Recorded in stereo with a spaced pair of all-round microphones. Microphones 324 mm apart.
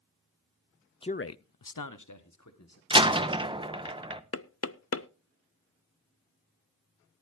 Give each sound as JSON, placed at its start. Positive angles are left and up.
{"t": 1.0, "sound": "a man speaking", "side_deg": 15, "distance_m": 0.6}
{"t": 2.9, "sound": "a door slam", "side_deg": -15, "distance_m": 0.9}
{"t": 4.3, "sound": "knocking", "side_deg": 45, "distance_m": 0.5}